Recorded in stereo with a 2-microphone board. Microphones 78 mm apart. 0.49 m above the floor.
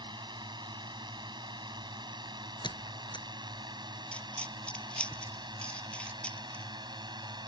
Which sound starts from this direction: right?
A drone, at 0.0 s.